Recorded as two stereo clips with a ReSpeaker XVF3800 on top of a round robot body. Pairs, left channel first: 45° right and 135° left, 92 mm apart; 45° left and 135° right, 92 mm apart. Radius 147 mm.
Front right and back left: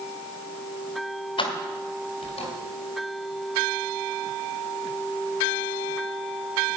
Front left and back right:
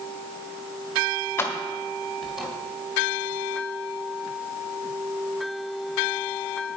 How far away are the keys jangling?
About 1.5 m.